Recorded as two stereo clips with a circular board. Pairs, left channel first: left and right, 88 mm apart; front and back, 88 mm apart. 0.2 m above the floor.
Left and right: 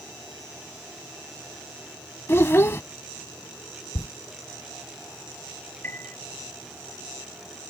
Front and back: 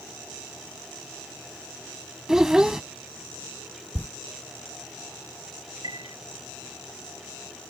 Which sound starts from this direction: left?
A child speaking, at 2.3 s.